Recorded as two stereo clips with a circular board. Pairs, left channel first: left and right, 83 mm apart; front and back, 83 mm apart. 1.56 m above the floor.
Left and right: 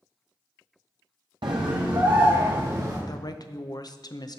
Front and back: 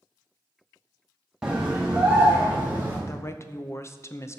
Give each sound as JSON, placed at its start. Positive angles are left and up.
{"t": 1.4, "sound": "a scream", "azimuth_deg": -95, "distance_m": 0.9}
{"t": 3.1, "sound": "a woman speaking", "azimuth_deg": 55, "distance_m": 0.6}